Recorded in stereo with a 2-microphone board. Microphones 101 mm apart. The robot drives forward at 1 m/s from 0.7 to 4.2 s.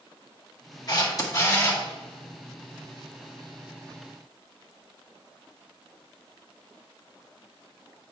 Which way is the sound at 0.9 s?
40° left (ahead or behind).